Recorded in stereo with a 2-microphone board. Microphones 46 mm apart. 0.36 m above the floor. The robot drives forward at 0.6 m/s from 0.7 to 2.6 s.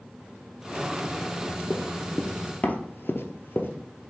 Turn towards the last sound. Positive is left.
turn(degrees=50)  # may be behind; listen again after turning